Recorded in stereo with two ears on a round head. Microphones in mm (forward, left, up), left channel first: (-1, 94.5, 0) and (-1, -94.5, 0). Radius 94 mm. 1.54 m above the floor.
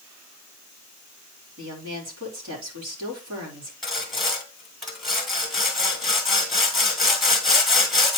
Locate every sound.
1.6 s a woman speaking: 70° right (ahead or behind), 3.5 m
3.8 s sawing: centre (ahead or behind), 1.9 m